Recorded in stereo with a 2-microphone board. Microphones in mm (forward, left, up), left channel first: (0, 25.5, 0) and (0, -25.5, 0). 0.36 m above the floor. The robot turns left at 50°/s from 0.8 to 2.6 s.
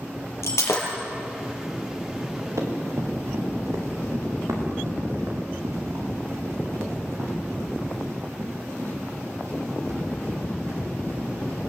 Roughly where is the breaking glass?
Left.